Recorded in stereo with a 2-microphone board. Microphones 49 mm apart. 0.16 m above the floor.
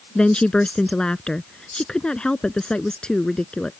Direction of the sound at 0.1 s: 20° left (ahead or behind).